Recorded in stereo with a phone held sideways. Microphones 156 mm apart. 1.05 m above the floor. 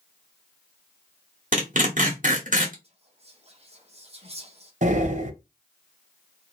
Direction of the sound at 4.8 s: 55° right (ahead or behind).